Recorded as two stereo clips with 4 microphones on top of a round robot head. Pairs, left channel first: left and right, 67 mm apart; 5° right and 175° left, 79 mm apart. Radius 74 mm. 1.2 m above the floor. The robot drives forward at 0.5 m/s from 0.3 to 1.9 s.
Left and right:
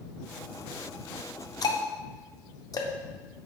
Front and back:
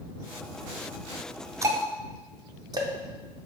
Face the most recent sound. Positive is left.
turn(degrees=130)